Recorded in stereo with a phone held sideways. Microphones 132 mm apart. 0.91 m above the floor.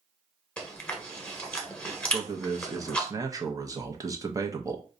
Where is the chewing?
10° left (ahead or behind), 0.9 m.